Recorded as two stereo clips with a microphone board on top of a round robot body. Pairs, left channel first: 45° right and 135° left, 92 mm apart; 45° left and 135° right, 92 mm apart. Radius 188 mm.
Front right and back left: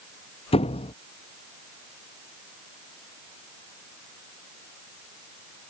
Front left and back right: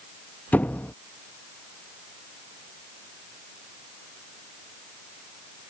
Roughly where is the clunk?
No clunk in this recording.